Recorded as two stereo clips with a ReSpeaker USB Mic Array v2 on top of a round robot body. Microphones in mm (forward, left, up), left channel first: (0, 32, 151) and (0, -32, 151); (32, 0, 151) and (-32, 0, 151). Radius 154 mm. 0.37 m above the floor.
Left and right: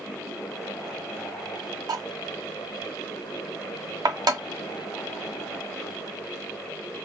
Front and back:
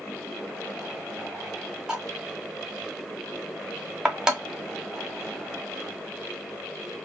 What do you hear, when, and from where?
1.9 s cutlery clinking: 100° right, 1.7 m